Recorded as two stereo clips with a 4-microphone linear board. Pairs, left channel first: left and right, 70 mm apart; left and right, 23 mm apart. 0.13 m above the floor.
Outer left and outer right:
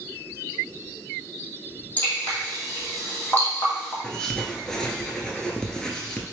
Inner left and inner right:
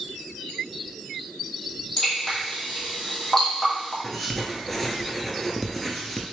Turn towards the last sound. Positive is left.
turn(degrees=10)  # may be behind; listen again after turning